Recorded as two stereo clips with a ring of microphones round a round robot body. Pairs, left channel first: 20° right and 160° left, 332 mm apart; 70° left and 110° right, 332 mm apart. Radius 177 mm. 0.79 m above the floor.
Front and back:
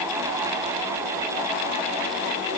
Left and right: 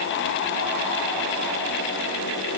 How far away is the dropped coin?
No dropped coin in this recording.